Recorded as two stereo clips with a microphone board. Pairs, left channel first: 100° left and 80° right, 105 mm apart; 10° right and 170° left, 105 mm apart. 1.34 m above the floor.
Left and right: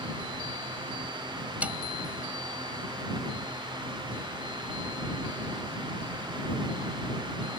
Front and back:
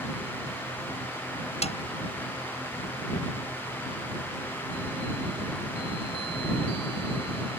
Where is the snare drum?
Straight ahead.